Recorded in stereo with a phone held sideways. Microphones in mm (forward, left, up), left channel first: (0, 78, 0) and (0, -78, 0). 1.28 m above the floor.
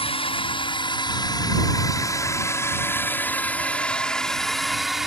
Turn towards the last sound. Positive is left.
turn(degrees=-5)  # may be behind; listen again after turning